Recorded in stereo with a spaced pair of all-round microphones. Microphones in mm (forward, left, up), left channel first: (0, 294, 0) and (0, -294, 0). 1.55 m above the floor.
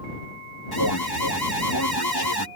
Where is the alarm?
40° left (ahead or behind).